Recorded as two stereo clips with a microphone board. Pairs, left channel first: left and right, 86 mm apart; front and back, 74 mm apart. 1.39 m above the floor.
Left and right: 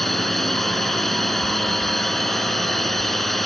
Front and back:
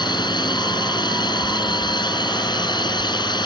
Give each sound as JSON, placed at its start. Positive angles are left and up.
{"t": 0.0, "sound": "a drone", "azimuth_deg": 0}